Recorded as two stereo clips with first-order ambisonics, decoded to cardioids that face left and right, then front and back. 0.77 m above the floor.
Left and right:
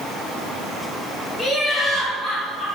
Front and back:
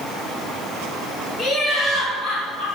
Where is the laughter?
10° left, 0.7 m; by 2.6 s 5° right, 1.7 m.